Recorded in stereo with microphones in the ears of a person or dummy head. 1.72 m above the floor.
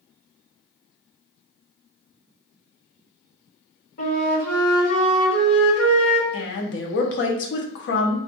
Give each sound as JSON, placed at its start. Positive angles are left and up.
{"t": 4.0, "sound": "a flute", "side_deg": 50, "distance_m": 2.0}
{"t": 6.3, "sound": "a woman speaking", "side_deg": 65, "distance_m": 0.8}